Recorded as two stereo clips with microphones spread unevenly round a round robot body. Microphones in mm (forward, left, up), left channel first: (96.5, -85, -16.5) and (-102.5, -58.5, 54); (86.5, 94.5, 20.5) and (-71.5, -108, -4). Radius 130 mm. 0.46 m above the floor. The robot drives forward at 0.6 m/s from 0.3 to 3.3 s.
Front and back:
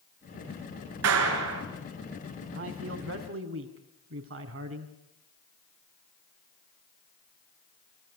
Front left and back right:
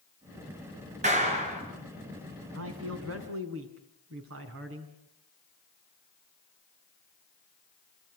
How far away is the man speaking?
About 3.5 m.